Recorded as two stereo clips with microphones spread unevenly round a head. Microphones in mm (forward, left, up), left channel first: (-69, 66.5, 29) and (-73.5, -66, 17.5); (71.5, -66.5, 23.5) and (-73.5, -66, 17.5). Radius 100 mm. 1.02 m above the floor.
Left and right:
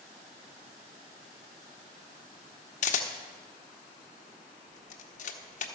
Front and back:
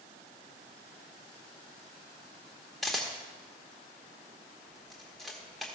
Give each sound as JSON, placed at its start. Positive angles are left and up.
{"t": 2.8, "sound": "a camera shutter", "azimuth_deg": 85, "distance_m": 0.9}